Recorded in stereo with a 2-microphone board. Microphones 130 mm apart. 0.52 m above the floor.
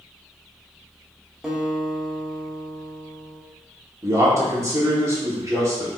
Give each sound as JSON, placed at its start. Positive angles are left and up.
{"t": 1.4, "sound": "a guitar", "side_deg": -5, "distance_m": 0.9}
{"t": 4.0, "sound": "a man speaking", "side_deg": -20, "distance_m": 1.2}